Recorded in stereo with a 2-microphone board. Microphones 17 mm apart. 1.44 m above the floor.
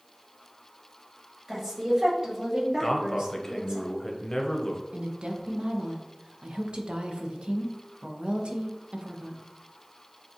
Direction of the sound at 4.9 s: 70° right (ahead or behind).